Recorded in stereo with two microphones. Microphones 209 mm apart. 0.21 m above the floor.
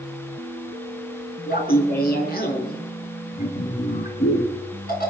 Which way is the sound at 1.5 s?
50° left (ahead or behind).